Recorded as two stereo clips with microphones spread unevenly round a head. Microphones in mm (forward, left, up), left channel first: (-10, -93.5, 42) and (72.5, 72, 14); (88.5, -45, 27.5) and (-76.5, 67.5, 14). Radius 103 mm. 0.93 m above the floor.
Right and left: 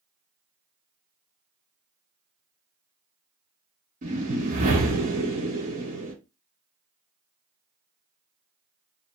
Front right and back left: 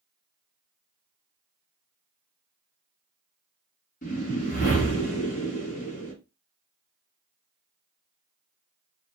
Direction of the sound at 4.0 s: 20° left.